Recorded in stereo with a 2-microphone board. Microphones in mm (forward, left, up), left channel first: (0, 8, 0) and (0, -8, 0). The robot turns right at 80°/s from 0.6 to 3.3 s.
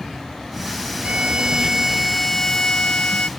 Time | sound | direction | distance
1.0 | a violin | 80° right | ?